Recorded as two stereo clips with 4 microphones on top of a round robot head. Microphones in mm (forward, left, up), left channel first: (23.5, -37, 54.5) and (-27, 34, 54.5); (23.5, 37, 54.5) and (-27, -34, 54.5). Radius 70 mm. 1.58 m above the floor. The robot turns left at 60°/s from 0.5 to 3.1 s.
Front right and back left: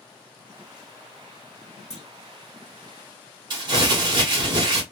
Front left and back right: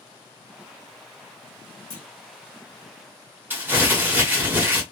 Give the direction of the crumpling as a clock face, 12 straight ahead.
6 o'clock.